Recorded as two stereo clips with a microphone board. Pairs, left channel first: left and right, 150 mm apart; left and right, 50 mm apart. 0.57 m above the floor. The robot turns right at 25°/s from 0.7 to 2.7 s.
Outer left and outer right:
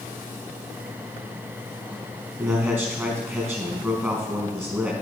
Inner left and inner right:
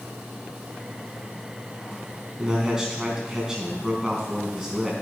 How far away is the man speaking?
About 4 m.